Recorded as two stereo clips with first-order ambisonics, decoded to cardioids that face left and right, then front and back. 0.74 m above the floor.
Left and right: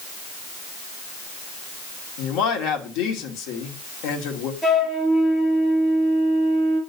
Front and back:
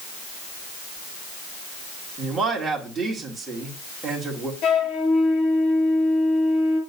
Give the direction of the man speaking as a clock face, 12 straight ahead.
8 o'clock.